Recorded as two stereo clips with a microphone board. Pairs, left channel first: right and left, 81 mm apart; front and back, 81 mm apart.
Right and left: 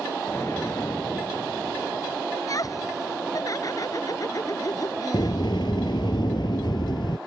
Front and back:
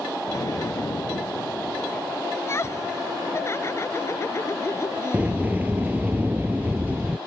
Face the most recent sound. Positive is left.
turn(degrees=-110)